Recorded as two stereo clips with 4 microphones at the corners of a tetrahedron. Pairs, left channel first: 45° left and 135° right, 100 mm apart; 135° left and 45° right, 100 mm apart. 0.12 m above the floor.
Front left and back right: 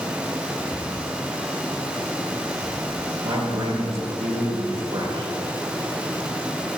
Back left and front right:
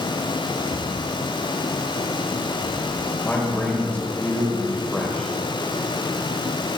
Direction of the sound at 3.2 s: 150° right.